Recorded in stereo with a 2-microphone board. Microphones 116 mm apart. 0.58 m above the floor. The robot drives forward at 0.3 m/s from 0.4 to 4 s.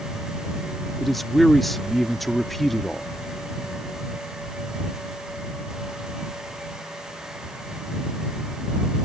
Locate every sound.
1.0 s a man speaking: centre (ahead or behind)